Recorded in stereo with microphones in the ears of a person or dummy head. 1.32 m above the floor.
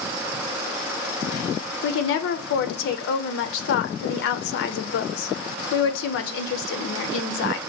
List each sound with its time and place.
1.8 s a woman speaking: 70° left (ahead or behind), 0.5 m